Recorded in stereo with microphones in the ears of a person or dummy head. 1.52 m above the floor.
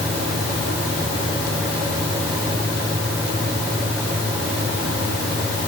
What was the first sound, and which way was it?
Only background noise.